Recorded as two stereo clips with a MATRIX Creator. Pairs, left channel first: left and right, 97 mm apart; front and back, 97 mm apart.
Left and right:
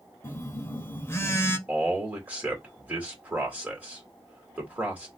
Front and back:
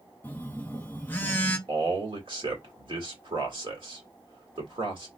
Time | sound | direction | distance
0.2 | a phone buzzing | 55° left | 0.7 m
1.7 | a man speaking | 165° right | 2 m